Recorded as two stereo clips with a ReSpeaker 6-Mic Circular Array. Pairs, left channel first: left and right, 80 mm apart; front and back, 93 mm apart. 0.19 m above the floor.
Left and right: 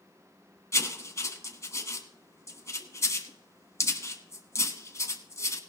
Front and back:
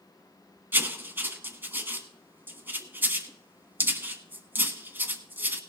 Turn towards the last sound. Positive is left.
turn(degrees=120)